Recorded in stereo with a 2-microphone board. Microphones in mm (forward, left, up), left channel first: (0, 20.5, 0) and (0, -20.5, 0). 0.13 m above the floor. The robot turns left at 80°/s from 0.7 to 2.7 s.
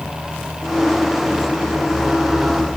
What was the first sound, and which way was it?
Only background noise.